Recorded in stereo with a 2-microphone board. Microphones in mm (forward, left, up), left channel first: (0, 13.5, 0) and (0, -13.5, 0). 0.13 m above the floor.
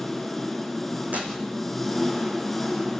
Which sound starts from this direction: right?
Tearing paper, at 1.1 s.